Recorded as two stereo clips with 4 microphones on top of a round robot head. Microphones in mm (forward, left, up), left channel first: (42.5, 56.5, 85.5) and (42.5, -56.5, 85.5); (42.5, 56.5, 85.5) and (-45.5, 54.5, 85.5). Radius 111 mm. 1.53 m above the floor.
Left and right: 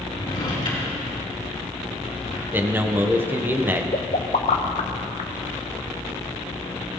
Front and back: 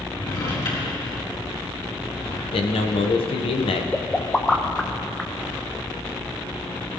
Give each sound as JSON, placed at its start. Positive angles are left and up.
{"t": 0.1, "sound": "a drawer", "azimuth_deg": 40, "distance_m": 4.5}
{"t": 2.5, "sound": "a man speaking", "azimuth_deg": -15, "distance_m": 1.4}
{"t": 3.9, "sound": "a pop", "azimuth_deg": 80, "distance_m": 0.7}